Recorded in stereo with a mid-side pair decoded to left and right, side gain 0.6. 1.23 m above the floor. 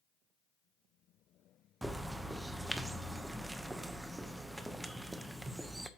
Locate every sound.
1.8 s a bird: 10° right, 0.9 m